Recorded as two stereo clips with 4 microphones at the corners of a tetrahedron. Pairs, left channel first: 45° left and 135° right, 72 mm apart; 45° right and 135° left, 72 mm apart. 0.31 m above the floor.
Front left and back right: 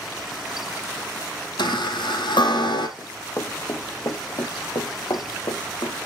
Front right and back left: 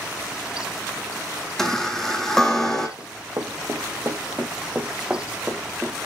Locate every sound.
1.6 s a chime: 40° left, 2 m
3.0 s running footsteps: 100° left, 1.6 m; by 6.0 s 50° left, 2 m